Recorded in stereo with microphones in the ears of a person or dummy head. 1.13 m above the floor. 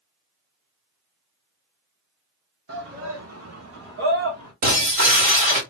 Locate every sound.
2.7 s a shout: 55° right (ahead or behind), 1.1 m; by 4.5 s 50° right (ahead or behind), 1.4 m
4.6 s breaking glass: 45° right (ahead or behind), 1.6 m